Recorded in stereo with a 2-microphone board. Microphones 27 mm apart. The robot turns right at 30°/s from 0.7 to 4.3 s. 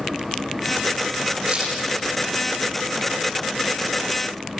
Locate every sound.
1.5 s a crack: 55° right (ahead or behind), 8 m; by 1.7 s 45° right (ahead or behind), 8 m